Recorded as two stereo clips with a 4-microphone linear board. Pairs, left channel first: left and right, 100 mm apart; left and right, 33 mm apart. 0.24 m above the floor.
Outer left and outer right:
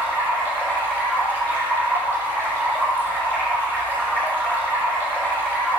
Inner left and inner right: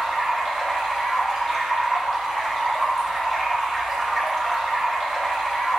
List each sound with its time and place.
0.0 s running water: 20° left (ahead or behind), 6 m